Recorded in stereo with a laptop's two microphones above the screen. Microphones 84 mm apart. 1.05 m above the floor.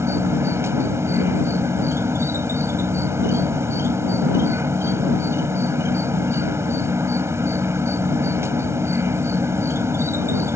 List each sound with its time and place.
0.0 s an insect: 35° right (ahead or behind)